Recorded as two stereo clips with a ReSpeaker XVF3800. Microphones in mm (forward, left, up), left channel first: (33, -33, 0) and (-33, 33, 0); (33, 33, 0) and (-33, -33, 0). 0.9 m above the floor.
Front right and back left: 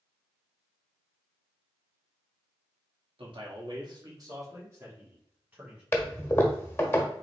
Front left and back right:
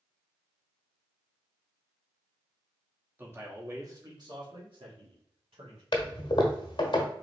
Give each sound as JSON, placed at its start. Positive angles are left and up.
{"t": 3.2, "sound": "a man speaking", "azimuth_deg": 155, "distance_m": 1.4}
{"t": 5.9, "sound": "a toilet flushing", "azimuth_deg": 20, "distance_m": 1.0}